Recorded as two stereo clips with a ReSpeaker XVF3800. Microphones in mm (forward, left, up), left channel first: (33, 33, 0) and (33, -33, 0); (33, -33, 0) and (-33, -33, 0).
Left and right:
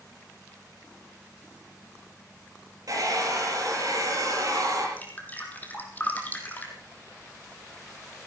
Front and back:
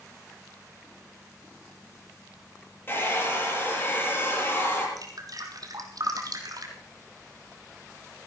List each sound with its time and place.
2.9 s a hair dryer: 55° right, 8 m
5.0 s dripping: 155° left, 2.5 m